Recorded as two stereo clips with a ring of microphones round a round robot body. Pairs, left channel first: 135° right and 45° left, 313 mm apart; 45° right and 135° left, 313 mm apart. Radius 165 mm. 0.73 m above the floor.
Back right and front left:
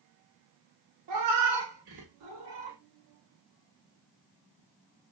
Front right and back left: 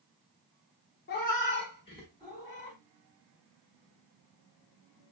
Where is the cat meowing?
15° left, 1.0 m; by 2.8 s 35° left, 1.7 m.